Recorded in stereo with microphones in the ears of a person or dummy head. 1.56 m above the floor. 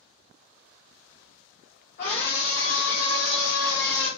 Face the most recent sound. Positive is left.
turn(degrees=30)  # may be behind; listen again after turning